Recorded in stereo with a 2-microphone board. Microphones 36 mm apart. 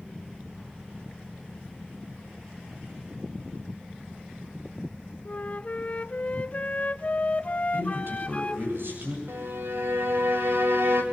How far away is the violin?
About 3 m.